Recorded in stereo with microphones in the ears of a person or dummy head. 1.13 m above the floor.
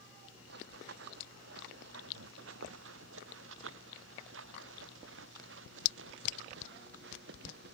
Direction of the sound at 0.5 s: 70° right (ahead or behind).